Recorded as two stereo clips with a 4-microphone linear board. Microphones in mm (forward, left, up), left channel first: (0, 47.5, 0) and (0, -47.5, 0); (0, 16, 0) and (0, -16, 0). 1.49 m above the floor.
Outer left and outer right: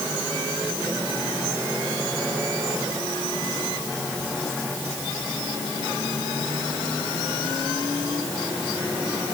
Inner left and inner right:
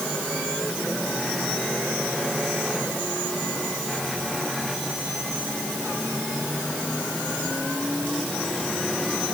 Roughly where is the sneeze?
I don't hear a sneeze.